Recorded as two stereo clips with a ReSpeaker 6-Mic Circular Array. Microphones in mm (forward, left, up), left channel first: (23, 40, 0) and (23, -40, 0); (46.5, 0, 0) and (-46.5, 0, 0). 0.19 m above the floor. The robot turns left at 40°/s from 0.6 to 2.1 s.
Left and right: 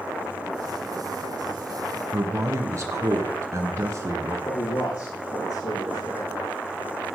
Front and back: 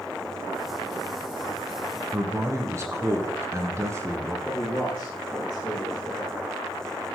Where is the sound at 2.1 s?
130° right, 2.5 m.